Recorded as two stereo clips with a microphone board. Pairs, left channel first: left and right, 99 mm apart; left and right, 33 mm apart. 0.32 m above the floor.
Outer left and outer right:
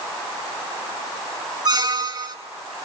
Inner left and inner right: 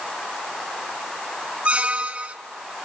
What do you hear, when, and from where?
1.6 s a squeak: 45° right (ahead or behind), 1.0 m